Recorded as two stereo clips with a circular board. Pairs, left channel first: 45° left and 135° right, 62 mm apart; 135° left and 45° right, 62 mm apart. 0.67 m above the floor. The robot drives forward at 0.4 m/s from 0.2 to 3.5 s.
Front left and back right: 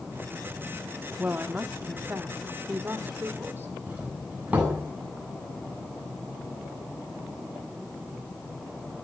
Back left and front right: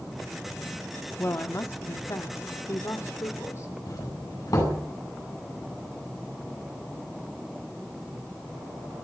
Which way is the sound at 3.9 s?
155° left.